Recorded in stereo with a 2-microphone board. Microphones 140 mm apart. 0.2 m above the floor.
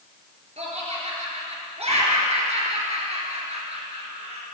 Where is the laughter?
50° right (ahead or behind), 4 m.